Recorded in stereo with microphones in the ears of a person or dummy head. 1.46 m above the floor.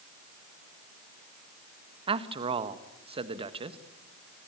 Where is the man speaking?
30° right (ahead or behind), 1.6 m.